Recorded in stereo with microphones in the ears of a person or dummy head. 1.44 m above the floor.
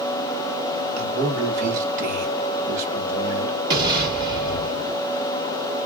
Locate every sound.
1.0 s a man speaking: 40° right (ahead or behind), 1.3 m
3.7 s an explosion: 20° right (ahead or behind), 1.4 m